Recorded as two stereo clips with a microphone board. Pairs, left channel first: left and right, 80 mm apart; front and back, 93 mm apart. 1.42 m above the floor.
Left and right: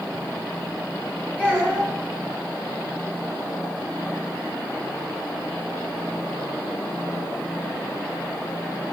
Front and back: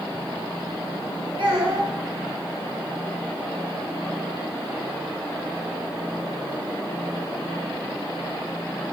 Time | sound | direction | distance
1.4 | a child speaking | 165° right | 1.0 m